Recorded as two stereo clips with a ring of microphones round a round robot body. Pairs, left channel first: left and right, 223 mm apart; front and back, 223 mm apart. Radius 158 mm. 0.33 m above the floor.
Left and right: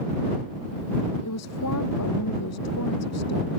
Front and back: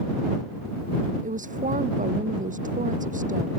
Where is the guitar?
No guitar in this recording.